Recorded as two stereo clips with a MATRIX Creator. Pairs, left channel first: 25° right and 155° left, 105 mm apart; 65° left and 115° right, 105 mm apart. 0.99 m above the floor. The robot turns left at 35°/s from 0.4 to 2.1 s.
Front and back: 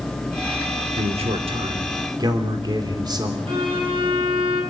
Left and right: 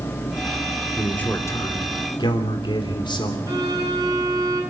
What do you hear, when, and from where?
1.0 s a man speaking: 150° left, 3 m; by 3.4 s 110° left, 3 m
3.5 s a violin: 165° right, 8.5 m